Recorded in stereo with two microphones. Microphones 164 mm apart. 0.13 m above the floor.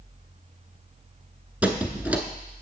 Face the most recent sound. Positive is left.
turn(degrees=-10)  # may be behind; listen again after turning